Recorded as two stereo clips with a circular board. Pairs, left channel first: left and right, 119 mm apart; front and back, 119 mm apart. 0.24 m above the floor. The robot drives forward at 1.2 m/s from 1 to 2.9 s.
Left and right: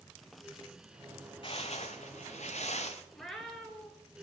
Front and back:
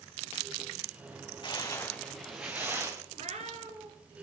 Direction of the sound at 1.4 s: 50° left.